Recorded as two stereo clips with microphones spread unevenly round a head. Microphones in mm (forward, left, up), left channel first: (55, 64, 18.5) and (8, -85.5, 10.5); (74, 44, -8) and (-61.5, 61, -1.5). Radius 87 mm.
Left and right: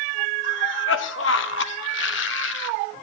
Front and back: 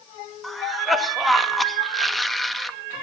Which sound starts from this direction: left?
A cough, at 0.4 s.